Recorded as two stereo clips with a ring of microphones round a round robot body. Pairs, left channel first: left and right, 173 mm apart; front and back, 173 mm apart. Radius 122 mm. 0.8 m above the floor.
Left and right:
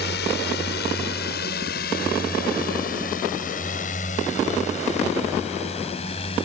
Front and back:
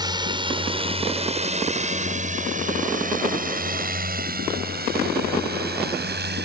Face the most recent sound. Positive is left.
turn(degrees=160)